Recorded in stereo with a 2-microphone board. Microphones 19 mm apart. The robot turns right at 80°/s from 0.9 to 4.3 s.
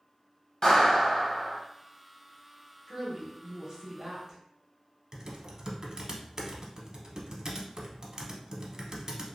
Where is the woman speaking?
175° left, 0.9 m; by 4.4 s 70° right, 0.9 m.